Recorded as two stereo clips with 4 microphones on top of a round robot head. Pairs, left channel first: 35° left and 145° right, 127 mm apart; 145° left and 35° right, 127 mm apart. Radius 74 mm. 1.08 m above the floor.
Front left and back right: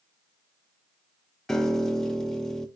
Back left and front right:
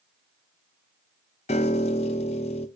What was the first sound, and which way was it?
A piano, 120° left.